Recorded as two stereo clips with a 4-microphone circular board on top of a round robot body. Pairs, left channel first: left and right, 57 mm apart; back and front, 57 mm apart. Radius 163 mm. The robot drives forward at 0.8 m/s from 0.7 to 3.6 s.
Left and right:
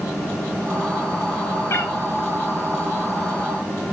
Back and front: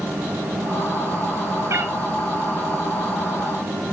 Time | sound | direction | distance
1.7 | a cat meowing | 40° left | 1.7 m